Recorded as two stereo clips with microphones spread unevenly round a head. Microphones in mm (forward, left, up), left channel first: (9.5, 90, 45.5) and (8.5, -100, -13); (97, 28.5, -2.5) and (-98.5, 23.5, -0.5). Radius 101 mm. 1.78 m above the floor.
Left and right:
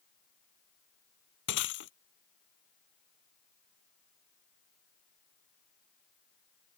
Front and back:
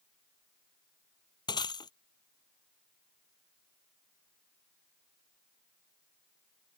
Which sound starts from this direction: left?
Breaking glass, at 1.5 s.